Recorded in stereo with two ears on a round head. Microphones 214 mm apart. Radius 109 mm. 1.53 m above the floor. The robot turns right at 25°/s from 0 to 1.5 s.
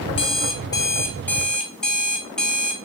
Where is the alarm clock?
140° left, 0.8 m; by 2.8 s 175° left, 0.8 m.